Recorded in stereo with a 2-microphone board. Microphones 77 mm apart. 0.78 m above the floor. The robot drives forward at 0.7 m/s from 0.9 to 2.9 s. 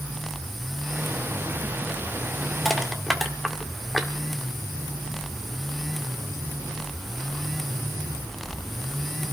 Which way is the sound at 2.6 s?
Centre (ahead or behind).